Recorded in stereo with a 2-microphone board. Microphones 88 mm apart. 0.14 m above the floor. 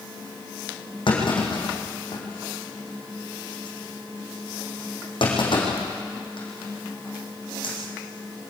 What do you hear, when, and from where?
1.1 s a clunk: 65° left (ahead or behind), 5.5 m